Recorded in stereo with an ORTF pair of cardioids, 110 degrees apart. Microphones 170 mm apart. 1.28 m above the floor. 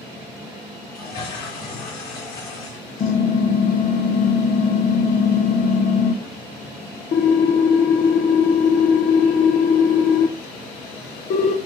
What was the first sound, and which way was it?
A toilet flushing, 65° left.